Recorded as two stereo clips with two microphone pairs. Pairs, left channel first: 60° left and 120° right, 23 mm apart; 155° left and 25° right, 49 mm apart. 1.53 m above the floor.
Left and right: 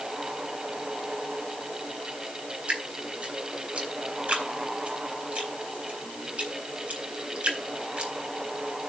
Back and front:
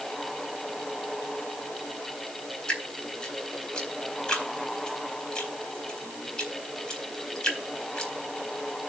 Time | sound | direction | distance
2.7 | dripping | 135° right | 4 m